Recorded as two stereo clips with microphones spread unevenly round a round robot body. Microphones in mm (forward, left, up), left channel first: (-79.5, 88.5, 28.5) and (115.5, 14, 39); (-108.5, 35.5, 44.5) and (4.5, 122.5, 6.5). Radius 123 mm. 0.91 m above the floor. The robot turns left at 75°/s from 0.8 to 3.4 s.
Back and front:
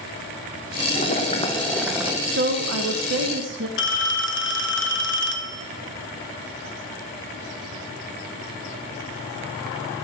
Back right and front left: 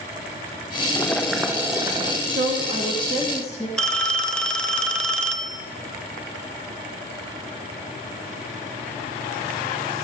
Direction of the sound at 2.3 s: 20° left.